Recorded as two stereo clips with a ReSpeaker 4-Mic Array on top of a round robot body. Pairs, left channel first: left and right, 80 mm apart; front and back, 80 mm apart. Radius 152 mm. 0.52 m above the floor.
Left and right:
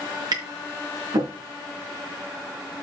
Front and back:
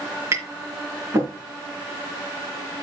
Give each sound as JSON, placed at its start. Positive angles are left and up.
{"t": 0.3, "sound": "tapping", "azimuth_deg": -125, "distance_m": 4.5}